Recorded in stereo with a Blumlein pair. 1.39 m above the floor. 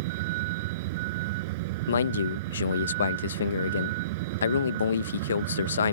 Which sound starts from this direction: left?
A man speaking, at 1.9 s.